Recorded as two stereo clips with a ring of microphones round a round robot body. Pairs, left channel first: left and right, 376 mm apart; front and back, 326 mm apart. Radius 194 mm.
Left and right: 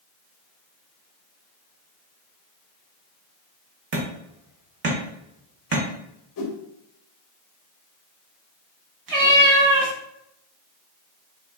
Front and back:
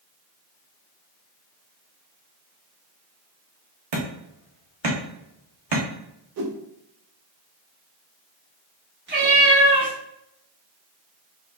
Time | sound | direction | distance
3.9 | hammering | 150° right | 0.7 m
6.4 | a whoosh | 135° left | 0.6 m
9.1 | a cat meowing | 120° right | 0.9 m